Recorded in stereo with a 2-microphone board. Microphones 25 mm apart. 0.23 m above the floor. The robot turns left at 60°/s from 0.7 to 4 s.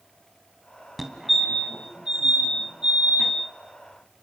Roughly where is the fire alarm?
Centre.